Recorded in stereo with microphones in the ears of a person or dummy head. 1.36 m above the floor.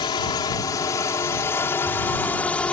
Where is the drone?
20° left (ahead or behind); by 2.7 s 5° left (ahead or behind).